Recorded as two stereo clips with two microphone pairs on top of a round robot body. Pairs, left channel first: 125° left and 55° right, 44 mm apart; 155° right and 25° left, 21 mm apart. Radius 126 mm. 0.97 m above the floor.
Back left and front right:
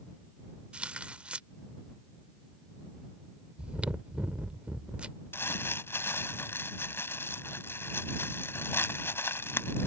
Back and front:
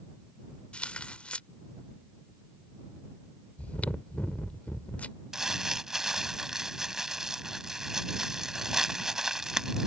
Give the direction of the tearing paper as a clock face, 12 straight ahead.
4 o'clock.